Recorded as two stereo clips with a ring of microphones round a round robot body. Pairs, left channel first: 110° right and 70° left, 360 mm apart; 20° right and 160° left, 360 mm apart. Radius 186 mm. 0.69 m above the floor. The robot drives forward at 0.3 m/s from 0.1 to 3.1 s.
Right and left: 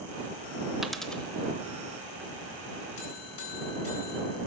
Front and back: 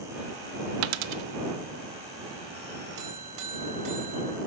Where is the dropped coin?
155° left, 0.6 m; by 1.2 s 160° left, 0.7 m.